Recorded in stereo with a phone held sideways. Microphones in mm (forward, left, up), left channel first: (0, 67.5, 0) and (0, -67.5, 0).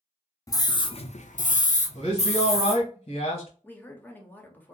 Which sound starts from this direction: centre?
A woman speaking, at 3.6 s.